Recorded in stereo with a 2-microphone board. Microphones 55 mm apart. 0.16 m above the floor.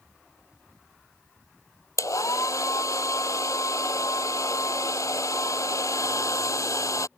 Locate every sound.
2.0 s a hair dryer: 80° left